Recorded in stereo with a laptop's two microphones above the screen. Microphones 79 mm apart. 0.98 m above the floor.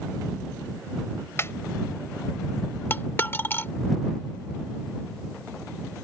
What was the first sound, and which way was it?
A snare drum, 35° left (ahead or behind).